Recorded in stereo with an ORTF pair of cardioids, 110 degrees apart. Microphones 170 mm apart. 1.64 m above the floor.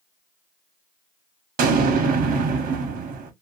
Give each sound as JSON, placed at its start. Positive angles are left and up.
{"t": 1.6, "sound": "an explosion", "azimuth_deg": -60, "distance_m": 1.0}